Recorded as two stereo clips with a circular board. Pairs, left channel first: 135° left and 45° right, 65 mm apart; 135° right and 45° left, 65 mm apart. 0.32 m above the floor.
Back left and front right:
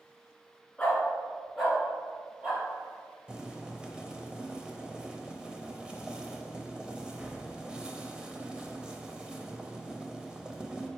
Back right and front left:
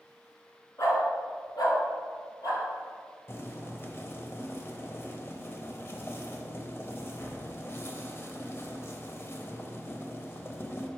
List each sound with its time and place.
0.8 s a dog barking: 155° right, 1.7 m; by 2.6 s 120° right, 3 m
3.3 s boiling: 115° right, 0.6 m